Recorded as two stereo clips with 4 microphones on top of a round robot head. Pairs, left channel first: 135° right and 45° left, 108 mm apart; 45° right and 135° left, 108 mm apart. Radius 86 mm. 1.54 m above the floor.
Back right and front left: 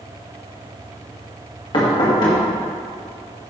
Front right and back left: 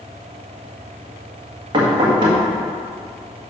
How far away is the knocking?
About 1.8 m.